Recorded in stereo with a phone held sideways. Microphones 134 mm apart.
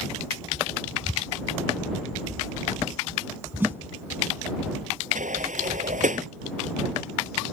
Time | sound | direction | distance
3.6 | a snare drum | 15° right (ahead or behind) | ?
5.2 | a sliding door | 75° right (ahead or behind) | ?